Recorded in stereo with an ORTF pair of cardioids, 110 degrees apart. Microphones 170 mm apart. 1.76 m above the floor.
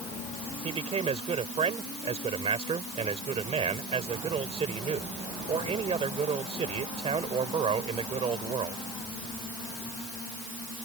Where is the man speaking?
35° right.